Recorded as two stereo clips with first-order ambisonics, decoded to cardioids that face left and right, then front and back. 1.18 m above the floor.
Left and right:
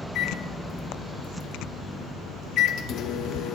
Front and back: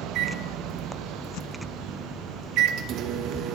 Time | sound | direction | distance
0.1 | a microwave | 140° left | 0.5 m